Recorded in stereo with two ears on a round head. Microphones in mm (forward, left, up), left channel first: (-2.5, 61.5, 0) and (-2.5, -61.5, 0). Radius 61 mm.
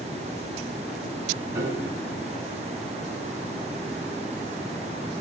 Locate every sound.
1.6 s a piano: 25° right (ahead or behind), 5 m